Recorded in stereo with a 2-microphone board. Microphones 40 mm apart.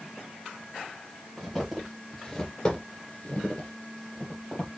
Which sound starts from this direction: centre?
Footsteps, at 1.4 s.